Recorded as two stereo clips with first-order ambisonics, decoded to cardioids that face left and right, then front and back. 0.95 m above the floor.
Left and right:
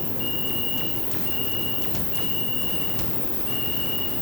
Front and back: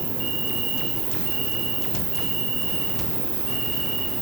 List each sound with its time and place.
0.0 s an insect: 150° left, 3 m